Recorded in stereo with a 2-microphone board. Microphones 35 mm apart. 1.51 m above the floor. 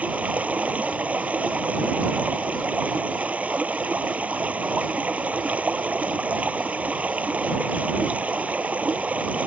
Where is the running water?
45° right (ahead or behind).